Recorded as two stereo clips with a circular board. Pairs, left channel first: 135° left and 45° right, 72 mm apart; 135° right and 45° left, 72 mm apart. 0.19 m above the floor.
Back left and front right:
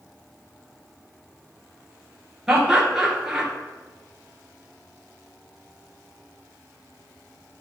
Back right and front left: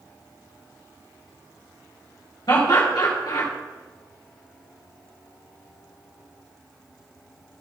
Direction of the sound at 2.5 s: 130° right.